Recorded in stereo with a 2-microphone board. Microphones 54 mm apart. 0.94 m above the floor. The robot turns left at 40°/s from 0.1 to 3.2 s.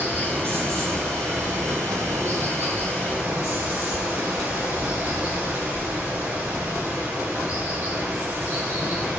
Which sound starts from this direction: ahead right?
Running water, at 0.0 s.